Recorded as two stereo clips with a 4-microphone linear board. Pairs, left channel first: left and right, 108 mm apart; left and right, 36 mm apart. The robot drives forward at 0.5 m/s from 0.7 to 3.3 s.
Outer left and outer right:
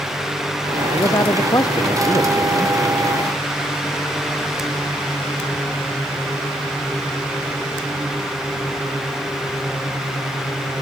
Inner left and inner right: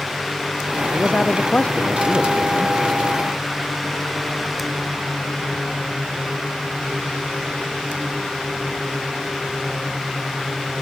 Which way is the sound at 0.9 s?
35° left (ahead or behind).